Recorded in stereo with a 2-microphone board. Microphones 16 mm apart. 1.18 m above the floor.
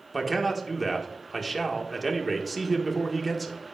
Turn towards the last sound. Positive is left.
turn(degrees=10)  # may be behind; listen again after turning